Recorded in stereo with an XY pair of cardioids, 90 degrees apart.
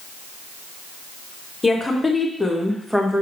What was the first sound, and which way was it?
A woman speaking, 20° left.